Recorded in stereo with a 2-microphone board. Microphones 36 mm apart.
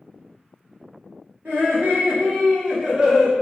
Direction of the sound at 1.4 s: 65° right (ahead or behind).